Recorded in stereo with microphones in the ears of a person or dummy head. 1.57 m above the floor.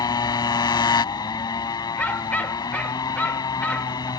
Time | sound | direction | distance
0.0 | a motorcycle | 25° left (ahead or behind) | ?
2.0 | a dog barking | 5° left (ahead or behind) | ?